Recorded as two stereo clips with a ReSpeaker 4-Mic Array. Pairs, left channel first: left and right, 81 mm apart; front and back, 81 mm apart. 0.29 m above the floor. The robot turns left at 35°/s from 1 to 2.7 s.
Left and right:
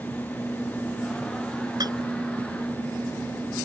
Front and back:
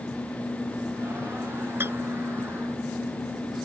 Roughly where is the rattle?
Behind right.